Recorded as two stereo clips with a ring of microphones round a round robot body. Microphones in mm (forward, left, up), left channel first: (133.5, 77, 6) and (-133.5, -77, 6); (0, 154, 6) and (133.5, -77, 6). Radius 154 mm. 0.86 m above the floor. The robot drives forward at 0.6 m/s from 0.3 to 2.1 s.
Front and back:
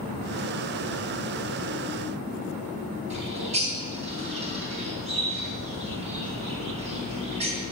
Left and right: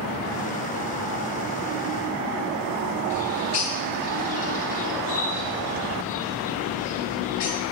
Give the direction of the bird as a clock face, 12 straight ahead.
7 o'clock.